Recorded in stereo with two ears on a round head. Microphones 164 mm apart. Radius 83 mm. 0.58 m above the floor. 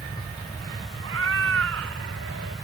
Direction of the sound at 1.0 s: 85° right.